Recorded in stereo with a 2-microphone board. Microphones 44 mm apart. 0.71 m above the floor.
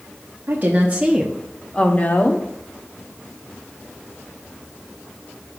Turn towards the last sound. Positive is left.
turn(degrees=50)  # may be behind; listen again after turning